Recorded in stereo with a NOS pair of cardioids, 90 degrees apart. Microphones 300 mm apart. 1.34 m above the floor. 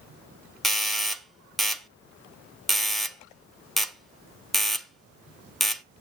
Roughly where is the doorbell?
Ahead.